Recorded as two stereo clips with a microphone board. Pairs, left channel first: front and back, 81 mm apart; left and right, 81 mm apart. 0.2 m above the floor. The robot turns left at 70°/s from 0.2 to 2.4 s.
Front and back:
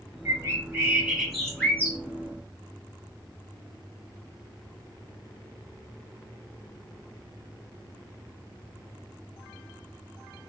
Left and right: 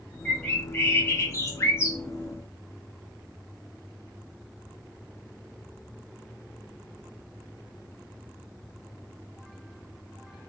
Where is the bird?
165° left, 0.9 m; by 2.0 s 45° left, 0.9 m.